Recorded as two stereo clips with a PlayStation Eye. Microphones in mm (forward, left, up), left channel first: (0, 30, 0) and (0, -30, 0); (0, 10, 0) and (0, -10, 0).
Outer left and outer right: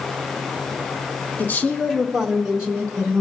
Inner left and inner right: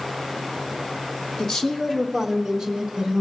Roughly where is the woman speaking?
Left.